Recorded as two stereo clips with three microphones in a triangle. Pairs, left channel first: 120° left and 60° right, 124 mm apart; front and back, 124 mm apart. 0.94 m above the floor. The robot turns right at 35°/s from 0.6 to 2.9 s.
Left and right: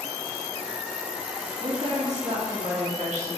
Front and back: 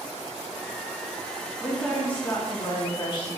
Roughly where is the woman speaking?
Right.